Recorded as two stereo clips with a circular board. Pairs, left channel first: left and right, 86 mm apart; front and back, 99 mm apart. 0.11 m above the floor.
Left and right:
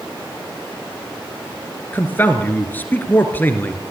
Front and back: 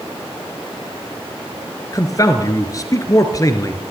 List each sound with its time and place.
1.9 s a man speaking: 35° left, 2 m